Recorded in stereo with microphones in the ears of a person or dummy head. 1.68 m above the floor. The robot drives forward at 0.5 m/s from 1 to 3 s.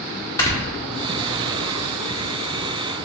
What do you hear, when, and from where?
0.4 s snoring: 20° left (ahead or behind), 0.9 m